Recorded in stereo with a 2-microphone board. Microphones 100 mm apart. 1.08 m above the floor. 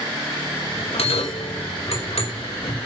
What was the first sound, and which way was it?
A bell, 80° left.